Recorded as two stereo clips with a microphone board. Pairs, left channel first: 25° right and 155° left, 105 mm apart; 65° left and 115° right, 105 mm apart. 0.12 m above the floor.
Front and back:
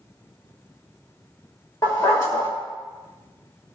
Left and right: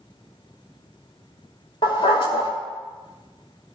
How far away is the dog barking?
About 5.5 m.